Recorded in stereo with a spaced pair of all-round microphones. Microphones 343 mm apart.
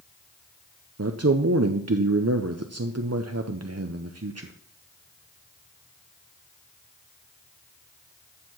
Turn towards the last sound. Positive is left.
turn(degrees=-50)  # may be behind; listen again after turning